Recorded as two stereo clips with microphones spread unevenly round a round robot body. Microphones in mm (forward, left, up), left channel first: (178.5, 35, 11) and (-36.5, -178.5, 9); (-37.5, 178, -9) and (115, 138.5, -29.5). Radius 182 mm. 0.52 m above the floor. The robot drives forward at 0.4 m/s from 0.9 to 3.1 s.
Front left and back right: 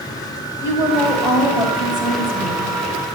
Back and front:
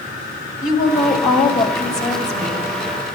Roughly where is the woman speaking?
Behind left.